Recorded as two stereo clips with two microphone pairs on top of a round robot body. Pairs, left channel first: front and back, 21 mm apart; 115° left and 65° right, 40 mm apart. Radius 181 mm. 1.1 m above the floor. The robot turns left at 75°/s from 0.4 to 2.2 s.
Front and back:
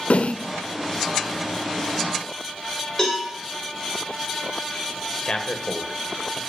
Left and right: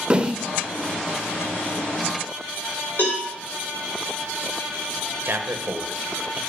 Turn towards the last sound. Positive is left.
turn(degrees=-35)